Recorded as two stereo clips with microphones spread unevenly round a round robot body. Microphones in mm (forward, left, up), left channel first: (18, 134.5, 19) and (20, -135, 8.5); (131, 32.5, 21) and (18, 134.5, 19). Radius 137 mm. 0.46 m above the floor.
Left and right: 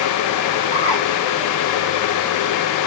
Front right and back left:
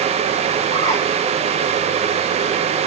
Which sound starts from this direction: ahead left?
A bird, at 0.7 s.